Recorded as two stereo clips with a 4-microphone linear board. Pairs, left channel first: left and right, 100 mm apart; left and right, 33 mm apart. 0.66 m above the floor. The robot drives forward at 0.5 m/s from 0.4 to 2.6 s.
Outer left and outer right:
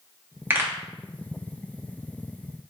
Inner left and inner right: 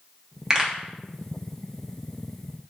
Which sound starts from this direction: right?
A pop, at 0.5 s.